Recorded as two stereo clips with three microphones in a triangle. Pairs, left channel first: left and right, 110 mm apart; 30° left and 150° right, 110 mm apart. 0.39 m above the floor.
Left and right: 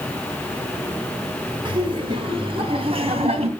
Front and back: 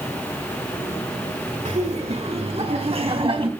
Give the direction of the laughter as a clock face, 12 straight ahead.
5 o'clock.